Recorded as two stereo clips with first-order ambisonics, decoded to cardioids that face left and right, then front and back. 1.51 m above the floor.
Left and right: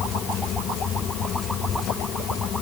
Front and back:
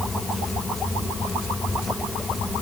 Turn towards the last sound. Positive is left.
No sound to turn to.